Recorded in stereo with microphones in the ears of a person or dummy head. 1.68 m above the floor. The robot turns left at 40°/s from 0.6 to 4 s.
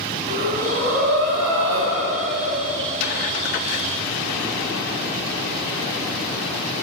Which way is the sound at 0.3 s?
45° right.